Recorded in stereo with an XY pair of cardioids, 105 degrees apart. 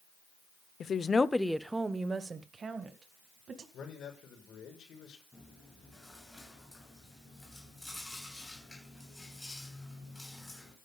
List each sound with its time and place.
0.8 s a woman speaking: 50° left, 0.7 m; by 3.6 s 50° right, 2.5 m
3.7 s a man speaking: 60° left, 6 m
5.3 s chewing: 10° left, 7.5 m